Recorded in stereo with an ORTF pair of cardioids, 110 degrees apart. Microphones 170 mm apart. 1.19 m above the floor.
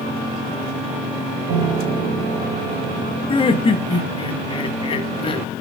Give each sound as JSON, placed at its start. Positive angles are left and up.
{"t": 1.5, "sound": "a piano", "azimuth_deg": -70, "distance_m": 2.5}
{"t": 3.3, "sound": "laughter", "azimuth_deg": 30, "distance_m": 1.4}